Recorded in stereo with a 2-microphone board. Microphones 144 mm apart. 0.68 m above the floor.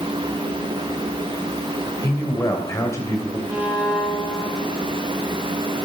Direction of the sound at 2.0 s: 20° left (ahead or behind).